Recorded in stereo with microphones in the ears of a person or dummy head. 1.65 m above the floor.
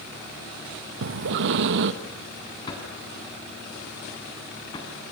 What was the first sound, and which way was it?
Breathing, 60° right (ahead or behind).